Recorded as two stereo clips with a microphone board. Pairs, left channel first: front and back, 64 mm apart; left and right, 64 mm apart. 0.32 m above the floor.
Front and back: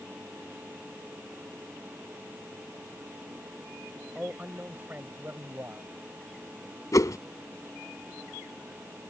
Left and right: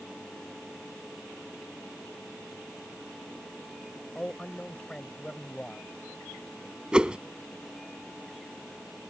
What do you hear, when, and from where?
4.2 s a man speaking: 140° left; by 5.9 s 160° left
6.9 s a whoosh: 15° right